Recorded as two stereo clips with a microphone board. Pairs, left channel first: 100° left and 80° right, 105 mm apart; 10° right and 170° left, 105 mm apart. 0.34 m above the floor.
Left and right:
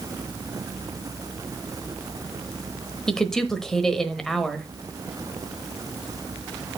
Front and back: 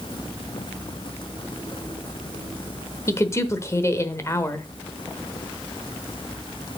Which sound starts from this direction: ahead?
A woman speaking, at 3.1 s.